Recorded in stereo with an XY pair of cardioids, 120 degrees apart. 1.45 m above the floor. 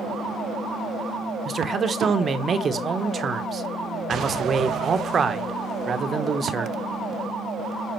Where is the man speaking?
30° right, 1.1 m.